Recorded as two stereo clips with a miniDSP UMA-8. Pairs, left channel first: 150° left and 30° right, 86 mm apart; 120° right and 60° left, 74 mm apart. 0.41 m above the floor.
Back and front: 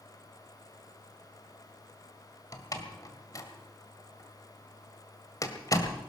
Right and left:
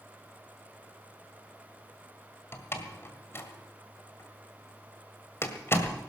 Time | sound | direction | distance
2.5 | a door slam | 170° right | 1.8 m